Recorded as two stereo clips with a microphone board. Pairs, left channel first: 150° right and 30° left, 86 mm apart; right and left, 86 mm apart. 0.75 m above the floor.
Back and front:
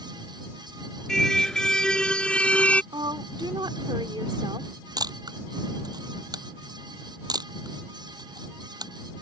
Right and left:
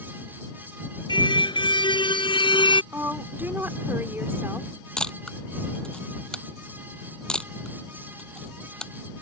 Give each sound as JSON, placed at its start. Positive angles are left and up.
{"t": 1.1, "sound": "a car horn", "azimuth_deg": -65}
{"t": 2.9, "sound": "a woman speaking", "azimuth_deg": 30}
{"t": 5.0, "sound": "a camera shutter", "azimuth_deg": -10}